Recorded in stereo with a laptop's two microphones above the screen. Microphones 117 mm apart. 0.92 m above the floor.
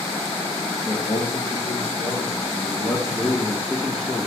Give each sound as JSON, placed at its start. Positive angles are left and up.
{"t": 0.8, "sound": "a man speaking", "side_deg": 55, "distance_m": 1.3}